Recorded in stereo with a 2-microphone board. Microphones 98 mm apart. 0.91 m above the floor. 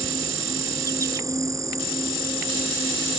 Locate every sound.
0.0 s an insect: 35° right (ahead or behind)